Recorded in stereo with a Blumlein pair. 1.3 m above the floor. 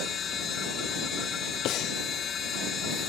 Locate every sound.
0.0 s a machine running: 25° left
1.6 s breathing: 35° left